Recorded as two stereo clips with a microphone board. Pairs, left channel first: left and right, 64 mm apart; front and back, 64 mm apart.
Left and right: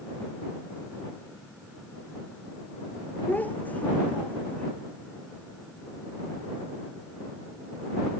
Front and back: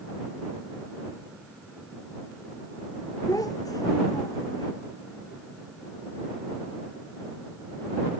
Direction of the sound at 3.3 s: 25° left.